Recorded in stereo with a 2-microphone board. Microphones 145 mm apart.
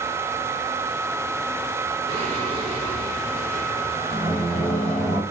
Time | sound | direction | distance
2.1 | singing | 40° right (ahead or behind) | 6.5 m